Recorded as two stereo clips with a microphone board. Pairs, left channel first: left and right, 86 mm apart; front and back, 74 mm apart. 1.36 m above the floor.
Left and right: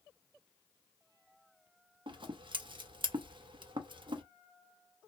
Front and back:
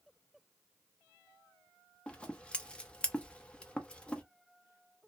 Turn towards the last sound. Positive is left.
turn(degrees=-75)